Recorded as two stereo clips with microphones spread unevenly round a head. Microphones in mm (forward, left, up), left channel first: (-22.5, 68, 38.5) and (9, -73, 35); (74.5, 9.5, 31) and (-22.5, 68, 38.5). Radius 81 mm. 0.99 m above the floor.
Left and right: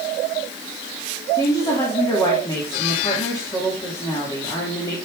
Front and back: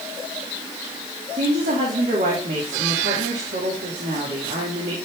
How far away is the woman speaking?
About 2.5 m.